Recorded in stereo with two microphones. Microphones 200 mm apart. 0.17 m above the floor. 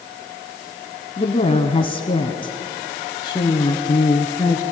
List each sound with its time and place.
1.2 s a woman speaking: 30° left (ahead or behind), 1.1 m; by 4.6 s 15° left (ahead or behind), 2.5 m